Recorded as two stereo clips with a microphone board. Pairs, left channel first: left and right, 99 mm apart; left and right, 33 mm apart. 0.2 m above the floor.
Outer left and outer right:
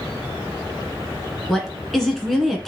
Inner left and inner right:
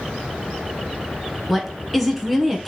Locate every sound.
1.5 s a woman speaking: centre (ahead or behind), 2.0 m